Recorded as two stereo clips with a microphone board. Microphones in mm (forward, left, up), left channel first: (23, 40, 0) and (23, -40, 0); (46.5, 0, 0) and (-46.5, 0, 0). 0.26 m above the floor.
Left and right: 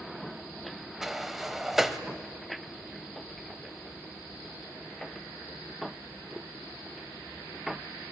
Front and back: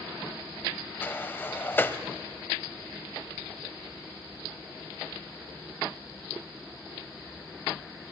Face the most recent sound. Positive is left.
turn(degrees=-10)